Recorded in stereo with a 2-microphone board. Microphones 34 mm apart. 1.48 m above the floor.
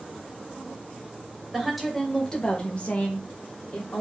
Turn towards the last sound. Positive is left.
turn(degrees=75)  # may be behind; listen again after turning